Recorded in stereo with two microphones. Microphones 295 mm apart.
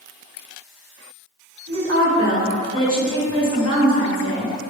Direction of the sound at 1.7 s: 55° right (ahead or behind).